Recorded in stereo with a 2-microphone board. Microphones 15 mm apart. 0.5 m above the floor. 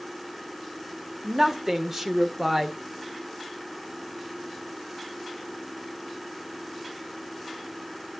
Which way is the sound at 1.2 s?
25° right (ahead or behind).